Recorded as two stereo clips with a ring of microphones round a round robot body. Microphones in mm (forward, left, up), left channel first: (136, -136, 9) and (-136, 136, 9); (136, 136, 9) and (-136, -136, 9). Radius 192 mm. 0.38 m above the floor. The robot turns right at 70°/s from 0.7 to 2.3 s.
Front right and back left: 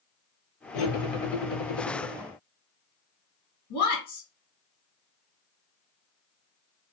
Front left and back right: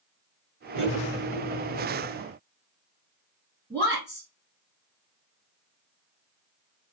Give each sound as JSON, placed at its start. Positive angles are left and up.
{"t": 0.7, "sound": "cutlery clinking", "azimuth_deg": -80, "distance_m": 0.9}
{"t": 3.7, "sound": "a woman speaking", "azimuth_deg": -35, "distance_m": 1.5}